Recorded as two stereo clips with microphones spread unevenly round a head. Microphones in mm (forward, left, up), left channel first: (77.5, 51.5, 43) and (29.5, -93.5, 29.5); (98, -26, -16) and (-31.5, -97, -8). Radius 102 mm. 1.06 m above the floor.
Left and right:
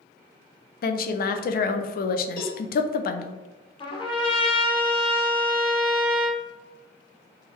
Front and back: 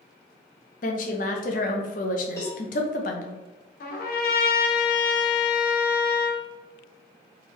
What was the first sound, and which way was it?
A woman speaking, 60° left.